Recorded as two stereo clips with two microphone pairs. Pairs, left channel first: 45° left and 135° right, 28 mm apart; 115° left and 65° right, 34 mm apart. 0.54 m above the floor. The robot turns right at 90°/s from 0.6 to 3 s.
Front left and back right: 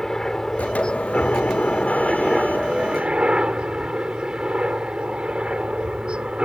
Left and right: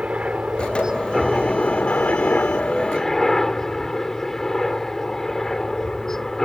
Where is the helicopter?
25° right; by 6.5 s 170° right.